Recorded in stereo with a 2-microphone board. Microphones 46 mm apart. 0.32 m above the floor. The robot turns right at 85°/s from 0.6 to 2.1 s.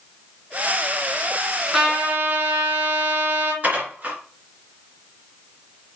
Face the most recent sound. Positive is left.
turn(degrees=-35)  # may be behind; listen again after turning